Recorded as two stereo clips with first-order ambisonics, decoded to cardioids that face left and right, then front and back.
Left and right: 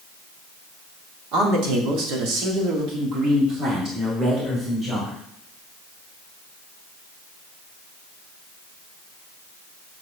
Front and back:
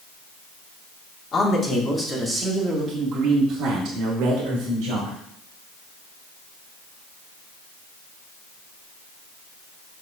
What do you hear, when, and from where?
1.3 s a man speaking: 65° right, 2.5 m; by 5.2 s 160° right, 3.5 m